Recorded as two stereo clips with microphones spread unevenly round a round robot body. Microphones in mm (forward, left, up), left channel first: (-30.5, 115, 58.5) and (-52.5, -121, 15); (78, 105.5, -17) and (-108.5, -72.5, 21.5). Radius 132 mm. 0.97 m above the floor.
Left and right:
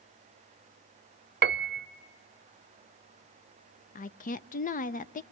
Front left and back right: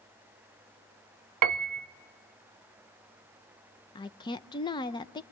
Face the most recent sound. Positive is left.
turn(degrees=50)